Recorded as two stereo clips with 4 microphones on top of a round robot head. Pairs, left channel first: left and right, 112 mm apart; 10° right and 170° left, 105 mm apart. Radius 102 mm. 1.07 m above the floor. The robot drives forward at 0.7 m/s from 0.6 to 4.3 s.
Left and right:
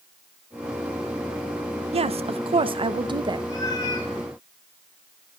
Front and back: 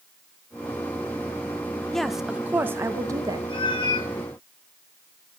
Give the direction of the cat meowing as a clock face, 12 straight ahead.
11 o'clock.